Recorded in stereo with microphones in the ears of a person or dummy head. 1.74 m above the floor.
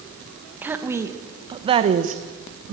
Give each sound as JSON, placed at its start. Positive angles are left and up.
{"t": 0.6, "sound": "a woman speaking", "side_deg": -10, "distance_m": 1.7}